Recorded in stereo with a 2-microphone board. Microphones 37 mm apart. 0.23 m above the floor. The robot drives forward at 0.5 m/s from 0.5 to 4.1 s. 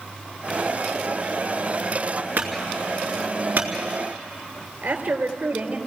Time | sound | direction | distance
2.4 | a clunk | 65° right (ahead or behind) | 3.5 m
4.8 | a woman speaking | 75° right (ahead or behind) | 3.5 m